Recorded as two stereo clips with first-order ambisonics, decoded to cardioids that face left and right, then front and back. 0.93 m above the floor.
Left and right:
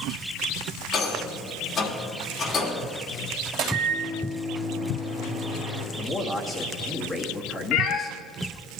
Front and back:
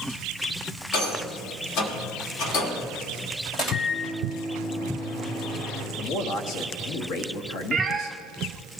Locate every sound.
0.9 s a rattle: 25° left, 1.5 m
3.5 s a microwave: 55° right, 3 m
6.0 s a man speaking: 5° left, 1.4 m
7.7 s a cat meowing: 110° left, 0.8 m